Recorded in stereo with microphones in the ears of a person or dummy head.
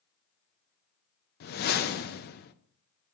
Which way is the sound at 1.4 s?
50° left (ahead or behind).